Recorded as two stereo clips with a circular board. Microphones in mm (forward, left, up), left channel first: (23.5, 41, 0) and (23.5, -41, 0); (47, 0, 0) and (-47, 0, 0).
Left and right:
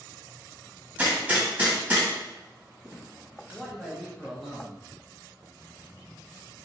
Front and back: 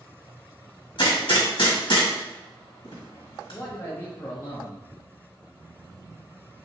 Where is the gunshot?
25° right, 1.7 m.